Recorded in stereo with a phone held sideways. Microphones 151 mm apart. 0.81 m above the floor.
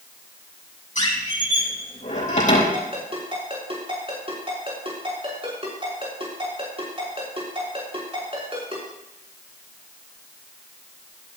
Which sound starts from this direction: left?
A squeak, at 0.9 s.